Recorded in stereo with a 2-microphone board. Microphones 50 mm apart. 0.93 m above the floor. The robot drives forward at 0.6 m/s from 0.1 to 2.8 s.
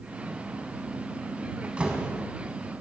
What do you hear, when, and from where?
1.6 s a door slam: 25° right (ahead or behind), 4.5 m